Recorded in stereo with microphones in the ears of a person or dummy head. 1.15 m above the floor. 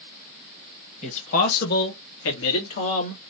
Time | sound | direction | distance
1.0 | a man speaking | 35° left (ahead or behind) | 1.2 m